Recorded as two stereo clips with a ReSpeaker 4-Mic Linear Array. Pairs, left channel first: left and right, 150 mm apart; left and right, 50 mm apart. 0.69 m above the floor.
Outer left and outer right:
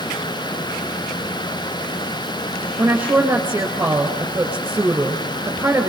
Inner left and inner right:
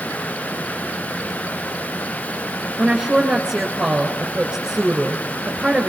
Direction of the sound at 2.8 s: 10° right (ahead or behind).